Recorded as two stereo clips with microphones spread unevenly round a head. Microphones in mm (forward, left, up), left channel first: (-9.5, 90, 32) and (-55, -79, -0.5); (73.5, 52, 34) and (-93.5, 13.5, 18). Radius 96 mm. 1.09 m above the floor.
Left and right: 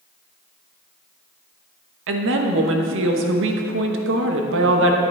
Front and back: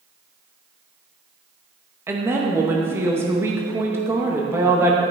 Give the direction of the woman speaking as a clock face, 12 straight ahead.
3 o'clock.